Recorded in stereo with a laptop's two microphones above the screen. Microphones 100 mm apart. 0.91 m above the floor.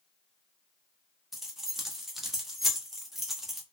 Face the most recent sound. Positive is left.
turn(degrees=0)  # may be behind; listen again after turning